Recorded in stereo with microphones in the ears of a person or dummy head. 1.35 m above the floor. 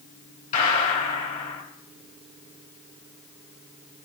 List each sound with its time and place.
0.5 s a gunshot: 45° left (ahead or behind), 2.5 m